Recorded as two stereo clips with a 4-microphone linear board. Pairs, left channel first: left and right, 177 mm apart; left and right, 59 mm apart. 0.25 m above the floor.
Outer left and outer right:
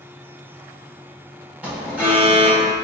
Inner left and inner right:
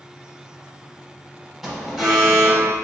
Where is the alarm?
10° right (ahead or behind), 0.8 m.